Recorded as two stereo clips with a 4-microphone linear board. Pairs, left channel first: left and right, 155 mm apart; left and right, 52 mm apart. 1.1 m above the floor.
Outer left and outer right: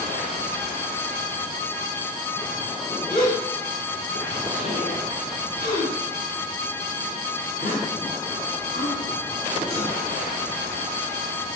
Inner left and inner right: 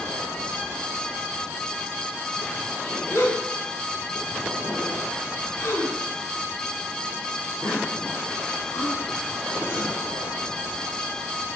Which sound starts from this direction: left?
A gasp, at 3.1 s.